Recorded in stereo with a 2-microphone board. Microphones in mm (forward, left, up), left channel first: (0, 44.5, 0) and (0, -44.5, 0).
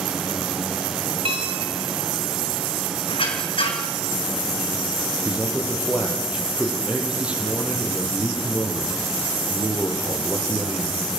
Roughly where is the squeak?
Left.